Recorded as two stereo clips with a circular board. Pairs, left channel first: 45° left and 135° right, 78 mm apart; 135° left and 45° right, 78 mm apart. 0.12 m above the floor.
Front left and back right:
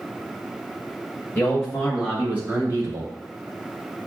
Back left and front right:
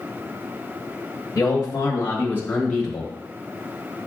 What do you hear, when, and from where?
1.4 s a man speaking: 110° left, 1.6 m; by 3.1 s 140° right, 1.7 m